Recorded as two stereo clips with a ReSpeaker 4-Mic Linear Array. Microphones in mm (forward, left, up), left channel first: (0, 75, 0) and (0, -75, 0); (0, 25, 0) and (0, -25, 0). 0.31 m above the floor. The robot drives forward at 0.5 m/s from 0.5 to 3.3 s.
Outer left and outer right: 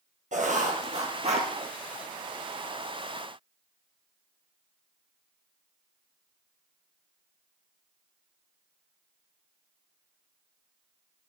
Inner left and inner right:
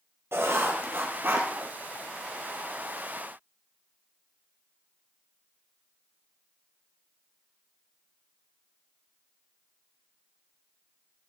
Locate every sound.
0.3 s writing: 55° right (ahead or behind), 2 m; by 1.5 s 45° right (ahead or behind), 2.5 m